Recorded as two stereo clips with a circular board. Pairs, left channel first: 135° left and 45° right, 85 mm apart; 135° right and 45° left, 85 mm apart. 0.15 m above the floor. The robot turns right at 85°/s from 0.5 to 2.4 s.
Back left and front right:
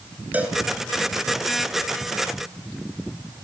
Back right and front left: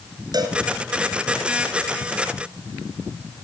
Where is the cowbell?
25° left, 1.9 m; by 0.6 s 30° left, 1.9 m.